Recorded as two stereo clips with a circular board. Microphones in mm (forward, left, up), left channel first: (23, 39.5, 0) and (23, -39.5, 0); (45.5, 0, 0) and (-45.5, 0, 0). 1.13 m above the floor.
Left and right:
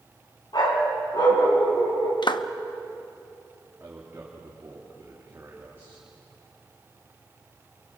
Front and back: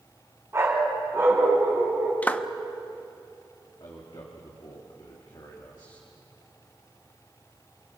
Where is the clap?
70° left, 0.8 m.